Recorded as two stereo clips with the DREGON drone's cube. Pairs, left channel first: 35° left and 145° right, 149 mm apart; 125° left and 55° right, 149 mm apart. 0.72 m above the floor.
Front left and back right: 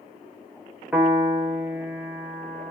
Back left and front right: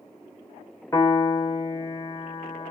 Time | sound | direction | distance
0.9 | a piano | 150° left | 0.7 m